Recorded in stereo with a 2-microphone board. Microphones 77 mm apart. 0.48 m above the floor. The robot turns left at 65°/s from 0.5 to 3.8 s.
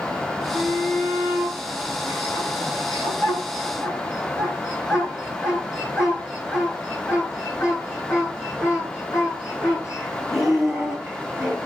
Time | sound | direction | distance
0.5 | a shout | 70° right (ahead or behind) | 6.5 m